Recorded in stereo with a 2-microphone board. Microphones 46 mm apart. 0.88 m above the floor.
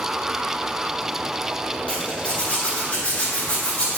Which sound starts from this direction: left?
A zipper, at 1.9 s.